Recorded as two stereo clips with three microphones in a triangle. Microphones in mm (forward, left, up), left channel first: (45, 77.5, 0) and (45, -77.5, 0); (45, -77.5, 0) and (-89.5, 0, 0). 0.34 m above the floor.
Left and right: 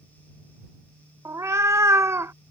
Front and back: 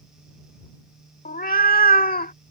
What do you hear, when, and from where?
1.2 s a cat meowing: 20° right